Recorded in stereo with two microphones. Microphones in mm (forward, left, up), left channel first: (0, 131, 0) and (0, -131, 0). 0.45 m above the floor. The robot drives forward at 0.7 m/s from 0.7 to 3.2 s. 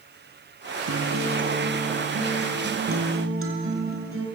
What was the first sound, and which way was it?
A guitar, 70° right (ahead or behind).